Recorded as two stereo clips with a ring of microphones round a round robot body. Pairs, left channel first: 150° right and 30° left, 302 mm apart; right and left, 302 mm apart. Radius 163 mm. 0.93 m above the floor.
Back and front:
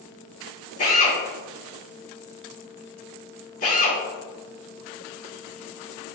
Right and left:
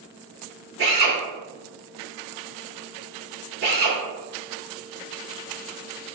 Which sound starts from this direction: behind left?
A drill, at 0.8 s.